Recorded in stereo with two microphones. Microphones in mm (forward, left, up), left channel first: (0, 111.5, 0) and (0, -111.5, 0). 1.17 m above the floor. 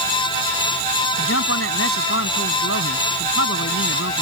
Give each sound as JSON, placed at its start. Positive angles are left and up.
{"t": 1.2, "sound": "a man speaking", "side_deg": 75}